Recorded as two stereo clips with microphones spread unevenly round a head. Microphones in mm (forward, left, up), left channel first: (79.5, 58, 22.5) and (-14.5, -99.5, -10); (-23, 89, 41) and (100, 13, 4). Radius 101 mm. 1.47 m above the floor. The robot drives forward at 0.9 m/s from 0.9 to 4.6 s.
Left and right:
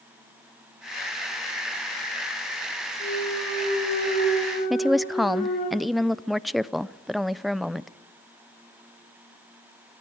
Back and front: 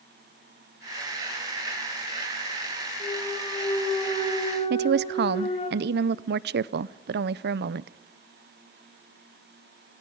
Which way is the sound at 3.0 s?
85° left.